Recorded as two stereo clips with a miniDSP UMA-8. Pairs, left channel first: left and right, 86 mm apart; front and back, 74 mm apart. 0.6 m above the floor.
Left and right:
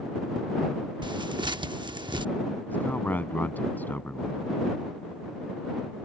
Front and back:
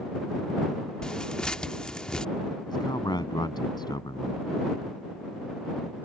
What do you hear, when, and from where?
1.0 s tearing paper: 80° right
2.7 s a man speaking: 20° left